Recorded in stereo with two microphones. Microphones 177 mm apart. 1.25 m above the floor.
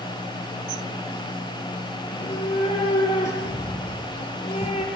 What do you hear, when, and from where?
2.0 s a cat meowing: 40° left (ahead or behind), 7 m